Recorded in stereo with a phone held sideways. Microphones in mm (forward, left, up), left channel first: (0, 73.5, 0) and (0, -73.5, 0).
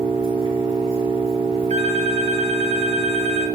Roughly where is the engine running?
Right.